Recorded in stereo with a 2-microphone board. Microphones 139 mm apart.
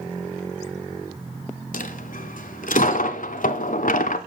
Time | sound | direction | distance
1.7 | a dropped coin | 70° left (ahead or behind) | 0.6 m